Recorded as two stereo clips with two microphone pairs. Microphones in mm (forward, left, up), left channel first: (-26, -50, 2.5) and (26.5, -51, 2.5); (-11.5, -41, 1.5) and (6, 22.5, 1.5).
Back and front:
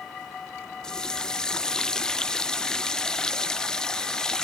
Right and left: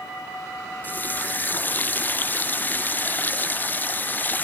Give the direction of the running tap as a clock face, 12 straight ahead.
4 o'clock.